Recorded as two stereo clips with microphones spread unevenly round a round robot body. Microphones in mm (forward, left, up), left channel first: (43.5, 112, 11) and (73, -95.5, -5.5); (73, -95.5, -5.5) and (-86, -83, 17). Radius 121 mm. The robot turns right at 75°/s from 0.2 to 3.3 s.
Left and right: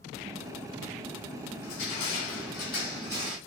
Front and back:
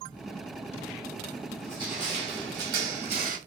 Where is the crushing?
90° left, 1.2 m; by 3.4 s 145° right, 1.2 m.